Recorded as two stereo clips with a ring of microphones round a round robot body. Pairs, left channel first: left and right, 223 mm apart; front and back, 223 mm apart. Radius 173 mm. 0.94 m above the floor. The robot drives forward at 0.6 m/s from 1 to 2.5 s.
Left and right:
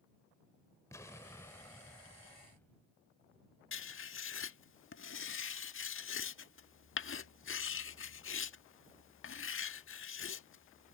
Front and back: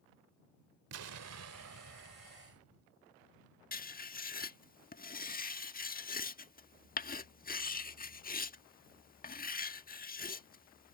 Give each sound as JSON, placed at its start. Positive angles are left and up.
{"t": 0.9, "sound": "an explosion", "azimuth_deg": 170}
{"t": 3.7, "sound": "writing", "azimuth_deg": 55}